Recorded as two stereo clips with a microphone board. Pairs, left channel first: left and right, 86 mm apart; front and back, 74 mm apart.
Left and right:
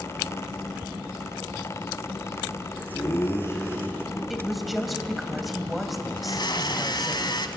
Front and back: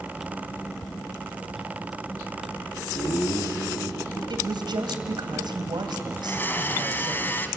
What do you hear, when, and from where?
2.9 s laughter: 35° left, 6.5 m; by 4.2 s 25° left, 5.5 m
4.3 s a woman speaking: 175° right, 3 m
6.2 s a blender: 60° left, 1.5 m